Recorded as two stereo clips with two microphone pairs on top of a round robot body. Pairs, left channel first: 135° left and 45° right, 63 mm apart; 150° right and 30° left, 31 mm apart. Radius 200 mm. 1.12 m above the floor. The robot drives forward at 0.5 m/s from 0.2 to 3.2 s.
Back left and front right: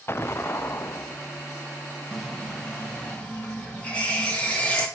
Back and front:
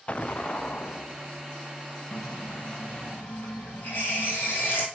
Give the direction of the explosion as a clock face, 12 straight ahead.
7 o'clock.